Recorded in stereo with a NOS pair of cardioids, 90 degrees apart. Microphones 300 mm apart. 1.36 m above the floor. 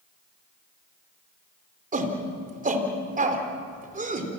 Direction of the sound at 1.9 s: 25° right.